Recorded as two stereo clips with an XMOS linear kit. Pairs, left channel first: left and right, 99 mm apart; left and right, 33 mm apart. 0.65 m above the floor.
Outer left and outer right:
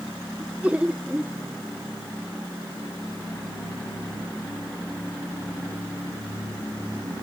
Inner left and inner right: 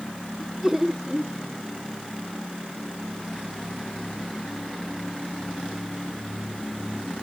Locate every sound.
0.4 s laughter: 10° right (ahead or behind)